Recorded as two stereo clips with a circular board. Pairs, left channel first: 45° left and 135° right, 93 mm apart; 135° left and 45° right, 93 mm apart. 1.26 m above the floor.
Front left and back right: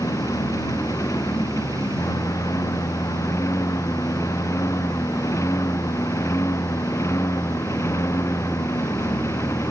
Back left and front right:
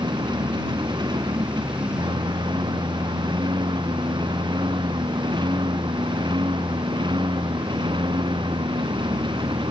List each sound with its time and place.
0.0 s a lawn mower: 10° right; by 9.7 s 15° right